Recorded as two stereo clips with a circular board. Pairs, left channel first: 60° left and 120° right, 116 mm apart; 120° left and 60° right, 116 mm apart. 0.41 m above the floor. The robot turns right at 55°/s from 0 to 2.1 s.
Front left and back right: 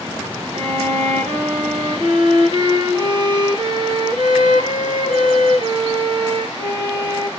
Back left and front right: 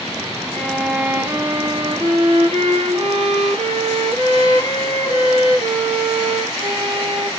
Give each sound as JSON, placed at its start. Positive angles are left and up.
{"t": 0.5, "sound": "a violin", "azimuth_deg": -165, "distance_m": 2.0}